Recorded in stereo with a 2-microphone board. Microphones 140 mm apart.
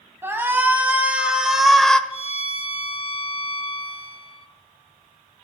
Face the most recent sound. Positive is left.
turn(degrees=50)  # may be behind; listen again after turning